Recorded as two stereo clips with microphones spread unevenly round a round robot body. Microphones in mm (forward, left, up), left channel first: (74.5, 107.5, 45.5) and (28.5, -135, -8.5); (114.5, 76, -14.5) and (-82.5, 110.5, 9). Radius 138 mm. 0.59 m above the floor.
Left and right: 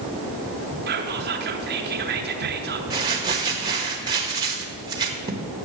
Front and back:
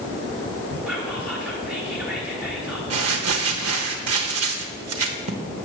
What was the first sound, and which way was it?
Whispering, 100° right.